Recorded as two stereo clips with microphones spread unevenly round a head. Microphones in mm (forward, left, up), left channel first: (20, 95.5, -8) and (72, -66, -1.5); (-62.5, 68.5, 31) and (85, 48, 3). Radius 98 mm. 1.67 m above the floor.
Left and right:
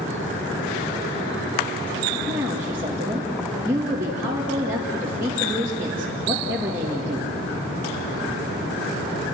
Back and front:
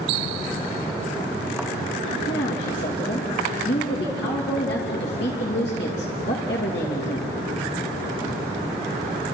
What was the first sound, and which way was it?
A woman speaking, 150° right.